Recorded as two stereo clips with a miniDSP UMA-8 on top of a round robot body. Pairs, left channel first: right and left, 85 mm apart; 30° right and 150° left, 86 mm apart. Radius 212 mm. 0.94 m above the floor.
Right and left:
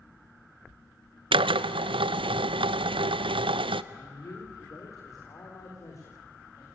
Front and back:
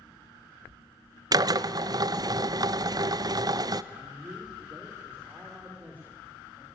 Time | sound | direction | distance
1.3 | a drill | 105° left | 0.6 m
3.9 | a man speaking | 140° right | 3.5 m